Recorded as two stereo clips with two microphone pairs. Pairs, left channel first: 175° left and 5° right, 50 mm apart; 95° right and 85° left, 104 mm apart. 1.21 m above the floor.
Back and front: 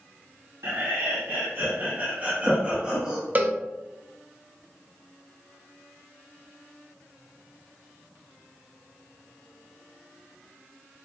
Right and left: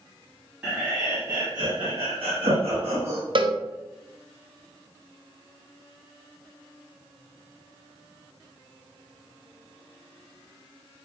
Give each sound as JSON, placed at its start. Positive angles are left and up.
{"t": 0.6, "sound": "laughter", "azimuth_deg": 5, "distance_m": 1.0}
{"t": 3.4, "sound": "a cowbell", "azimuth_deg": 50, "distance_m": 0.5}